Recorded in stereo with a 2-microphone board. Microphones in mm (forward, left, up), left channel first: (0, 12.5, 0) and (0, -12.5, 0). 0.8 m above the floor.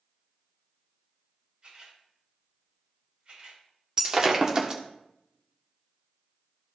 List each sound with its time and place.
1.6 s a camera shutter: 45° right (ahead or behind), 4 m
4.0 s breaking glass: 25° right (ahead or behind), 1.2 m